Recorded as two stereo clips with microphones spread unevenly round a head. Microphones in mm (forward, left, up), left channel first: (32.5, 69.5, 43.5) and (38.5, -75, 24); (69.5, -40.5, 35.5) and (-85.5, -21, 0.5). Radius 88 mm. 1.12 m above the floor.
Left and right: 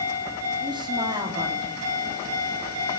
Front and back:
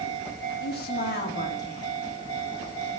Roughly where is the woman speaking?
Ahead right.